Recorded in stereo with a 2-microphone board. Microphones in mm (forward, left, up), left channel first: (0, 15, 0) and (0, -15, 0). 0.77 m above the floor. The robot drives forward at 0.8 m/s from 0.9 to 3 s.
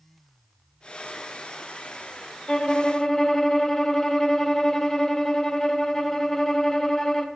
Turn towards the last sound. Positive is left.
turn(degrees=20)  # may be behind; listen again after turning